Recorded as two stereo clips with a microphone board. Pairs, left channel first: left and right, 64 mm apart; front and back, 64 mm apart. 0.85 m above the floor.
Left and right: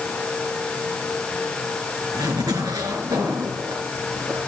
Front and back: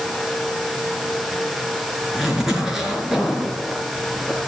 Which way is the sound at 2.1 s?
95° right.